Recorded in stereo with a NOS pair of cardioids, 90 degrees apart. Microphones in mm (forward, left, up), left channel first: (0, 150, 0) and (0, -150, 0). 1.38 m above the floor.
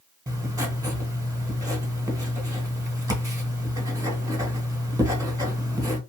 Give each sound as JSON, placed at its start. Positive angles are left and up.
{"t": 0.3, "sound": "writing", "azimuth_deg": -10, "distance_m": 1.0}